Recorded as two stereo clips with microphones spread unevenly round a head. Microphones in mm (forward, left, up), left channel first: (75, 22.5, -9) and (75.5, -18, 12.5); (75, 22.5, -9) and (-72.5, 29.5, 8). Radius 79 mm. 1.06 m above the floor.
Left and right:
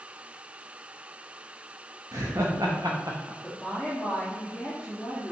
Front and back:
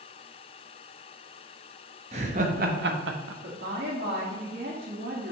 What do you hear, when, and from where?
2.1 s laughter: 125° right, 1.3 m; by 3.3 s 175° right, 0.8 m
3.4 s a woman speaking: 165° left, 1.9 m